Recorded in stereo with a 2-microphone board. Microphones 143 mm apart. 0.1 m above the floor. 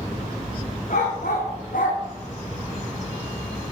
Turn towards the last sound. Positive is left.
turn(degrees=80)